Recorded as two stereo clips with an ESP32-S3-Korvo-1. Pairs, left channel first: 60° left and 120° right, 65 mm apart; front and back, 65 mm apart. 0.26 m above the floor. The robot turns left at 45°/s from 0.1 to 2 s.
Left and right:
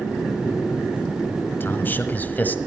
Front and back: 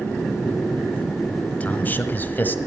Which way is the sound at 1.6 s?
45° left.